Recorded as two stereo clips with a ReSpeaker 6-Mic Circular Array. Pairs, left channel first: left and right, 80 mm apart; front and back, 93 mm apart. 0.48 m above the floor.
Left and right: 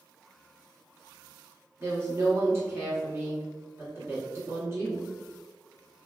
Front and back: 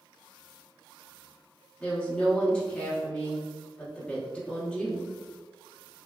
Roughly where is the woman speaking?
Ahead right.